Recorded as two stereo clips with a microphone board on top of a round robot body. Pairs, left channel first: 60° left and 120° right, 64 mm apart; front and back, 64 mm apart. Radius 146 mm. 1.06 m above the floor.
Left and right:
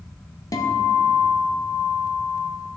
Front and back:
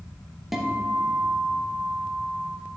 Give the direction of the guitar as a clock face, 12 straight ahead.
9 o'clock.